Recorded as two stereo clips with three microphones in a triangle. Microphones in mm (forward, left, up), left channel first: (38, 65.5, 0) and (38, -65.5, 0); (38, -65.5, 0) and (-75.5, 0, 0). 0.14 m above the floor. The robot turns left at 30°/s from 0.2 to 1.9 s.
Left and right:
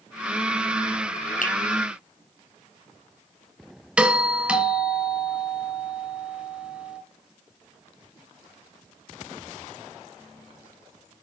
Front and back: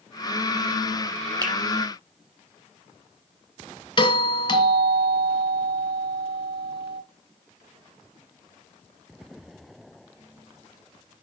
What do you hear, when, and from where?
1.4 s a finger snap: 90° left, 5 m; by 1.5 s 85° left, 5 m
4.0 s a doorbell: 15° right, 2 m